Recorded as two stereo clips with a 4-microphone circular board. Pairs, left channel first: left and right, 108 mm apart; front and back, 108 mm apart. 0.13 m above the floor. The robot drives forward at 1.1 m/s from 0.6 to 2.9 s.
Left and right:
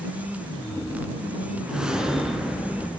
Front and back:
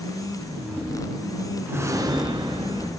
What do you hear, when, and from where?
1.7 s a whoosh: 155° right, 1.2 m; by 2.9 s 175° right, 2 m